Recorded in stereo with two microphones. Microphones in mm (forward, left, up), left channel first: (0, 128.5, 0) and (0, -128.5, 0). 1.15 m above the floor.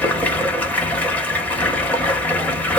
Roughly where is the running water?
Centre.